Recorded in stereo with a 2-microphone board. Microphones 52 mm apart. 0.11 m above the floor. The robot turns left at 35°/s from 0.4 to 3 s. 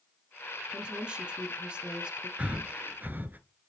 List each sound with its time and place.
0.7 s a woman speaking: 15° right (ahead or behind), 1.1 m
2.4 s breathing: 25° right (ahead or behind), 0.7 m; by 3.4 s 35° right (ahead or behind), 0.7 m